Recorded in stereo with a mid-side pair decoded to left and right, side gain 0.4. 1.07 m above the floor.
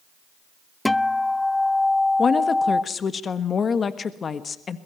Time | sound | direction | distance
0.8 | a guitar | 15° left | 0.5 m
2.2 | a woman speaking | 50° left | 1.4 m